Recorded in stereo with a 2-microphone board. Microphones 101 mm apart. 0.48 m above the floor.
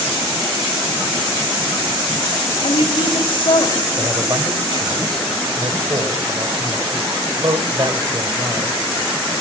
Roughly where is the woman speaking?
Left.